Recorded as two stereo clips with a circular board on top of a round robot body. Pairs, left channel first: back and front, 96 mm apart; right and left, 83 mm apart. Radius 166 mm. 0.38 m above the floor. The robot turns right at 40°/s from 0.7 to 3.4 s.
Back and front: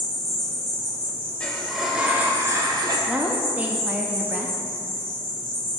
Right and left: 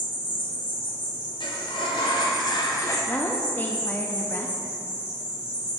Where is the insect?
95° right, 2 m; by 5.8 s 15° left, 2 m.